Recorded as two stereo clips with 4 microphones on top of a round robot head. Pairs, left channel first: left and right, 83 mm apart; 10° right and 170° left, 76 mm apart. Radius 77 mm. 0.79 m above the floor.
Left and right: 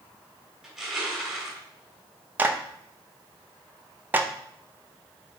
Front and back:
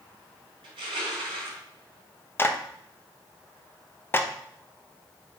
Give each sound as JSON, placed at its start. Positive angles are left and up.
{"t": 0.6, "sound": "crushing", "azimuth_deg": -170, "distance_m": 3.0}
{"t": 2.4, "sound": "a clap", "azimuth_deg": -40, "distance_m": 0.9}